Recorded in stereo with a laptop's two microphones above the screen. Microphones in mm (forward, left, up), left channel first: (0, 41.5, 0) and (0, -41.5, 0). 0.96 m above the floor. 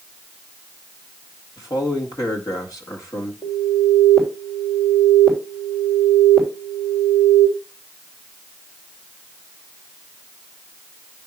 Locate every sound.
1.6 s a man speaking: 45° left (ahead or behind), 1.8 m
3.4 s an alarm: 65° left (ahead or behind), 3.5 m